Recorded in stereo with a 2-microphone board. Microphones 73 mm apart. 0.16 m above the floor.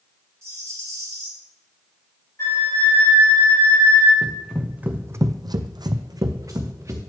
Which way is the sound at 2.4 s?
40° left (ahead or behind).